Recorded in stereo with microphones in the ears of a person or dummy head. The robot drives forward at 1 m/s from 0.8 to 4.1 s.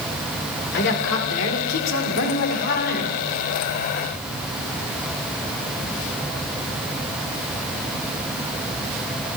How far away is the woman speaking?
About 1.9 m.